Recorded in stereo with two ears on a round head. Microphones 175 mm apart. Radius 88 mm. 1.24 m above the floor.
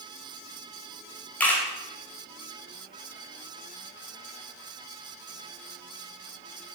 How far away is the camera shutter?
About 2 m.